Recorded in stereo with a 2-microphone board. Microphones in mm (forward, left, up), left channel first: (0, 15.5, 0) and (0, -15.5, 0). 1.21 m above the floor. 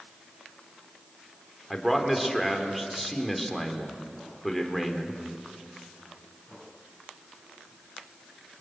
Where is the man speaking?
Centre (ahead or behind), 3.5 m.